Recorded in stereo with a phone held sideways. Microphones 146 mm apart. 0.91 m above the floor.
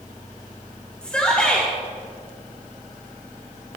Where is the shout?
5° left (ahead or behind), 2.5 m.